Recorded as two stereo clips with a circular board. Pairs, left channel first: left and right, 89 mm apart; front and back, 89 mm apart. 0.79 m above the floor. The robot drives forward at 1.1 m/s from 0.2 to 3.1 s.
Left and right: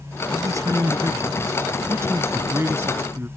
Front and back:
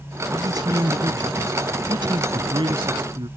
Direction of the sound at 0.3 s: 140° right.